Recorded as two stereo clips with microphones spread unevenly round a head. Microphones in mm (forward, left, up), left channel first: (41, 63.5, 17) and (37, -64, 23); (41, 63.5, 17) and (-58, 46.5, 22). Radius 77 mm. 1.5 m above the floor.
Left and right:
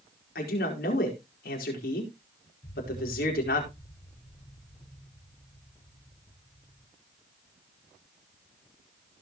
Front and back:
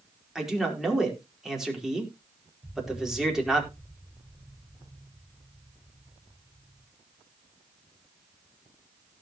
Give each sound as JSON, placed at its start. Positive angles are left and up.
{"t": 0.3, "sound": "a man speaking", "azimuth_deg": 105, "distance_m": 4.5}
{"t": 2.6, "sound": "an explosion", "azimuth_deg": 125, "distance_m": 5.5}